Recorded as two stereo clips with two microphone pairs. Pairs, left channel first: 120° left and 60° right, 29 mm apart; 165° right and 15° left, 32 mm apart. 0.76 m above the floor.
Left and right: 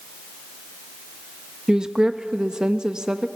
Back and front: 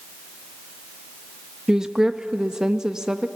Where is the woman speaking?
40° right, 0.6 m.